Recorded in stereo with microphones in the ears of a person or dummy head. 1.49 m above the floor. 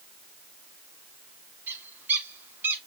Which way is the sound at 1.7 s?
15° right (ahead or behind).